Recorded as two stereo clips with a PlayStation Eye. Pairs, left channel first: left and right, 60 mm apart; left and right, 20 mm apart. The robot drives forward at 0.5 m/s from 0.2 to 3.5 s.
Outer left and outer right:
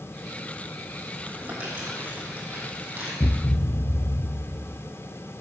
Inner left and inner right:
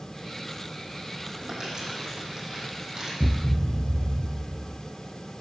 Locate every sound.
1.3 s crumpling: 25° right (ahead or behind), 6 m; by 3.1 s 30° right (ahead or behind), 5 m
3.2 s a thud: 55° left (ahead or behind), 0.9 m; by 4.8 s 50° left (ahead or behind), 1.0 m